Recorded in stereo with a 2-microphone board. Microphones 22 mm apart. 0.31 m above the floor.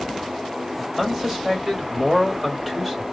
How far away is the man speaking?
About 1.7 m.